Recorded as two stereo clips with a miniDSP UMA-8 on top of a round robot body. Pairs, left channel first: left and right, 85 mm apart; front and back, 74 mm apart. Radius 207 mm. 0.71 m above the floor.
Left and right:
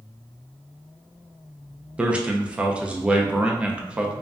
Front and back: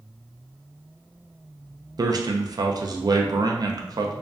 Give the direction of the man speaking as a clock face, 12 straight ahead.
6 o'clock.